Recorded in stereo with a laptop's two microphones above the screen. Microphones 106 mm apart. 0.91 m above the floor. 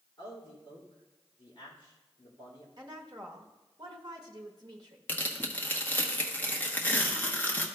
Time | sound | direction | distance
0.2 | a man speaking | 40° left (ahead or behind) | 2.5 m
2.8 | a woman speaking | 40° right (ahead or behind) | 1.2 m
5.1 | tearing paper | 15° left (ahead or behind) | 0.9 m